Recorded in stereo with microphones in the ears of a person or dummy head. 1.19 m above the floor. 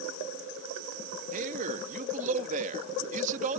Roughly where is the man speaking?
Right.